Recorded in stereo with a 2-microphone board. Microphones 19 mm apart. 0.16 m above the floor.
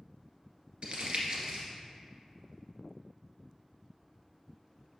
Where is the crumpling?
60° right (ahead or behind), 1.7 m.